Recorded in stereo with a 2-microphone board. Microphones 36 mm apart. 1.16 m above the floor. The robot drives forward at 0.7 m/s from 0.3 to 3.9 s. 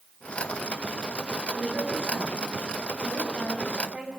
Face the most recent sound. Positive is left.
turn(degrees=-35)  # may be behind; listen again after turning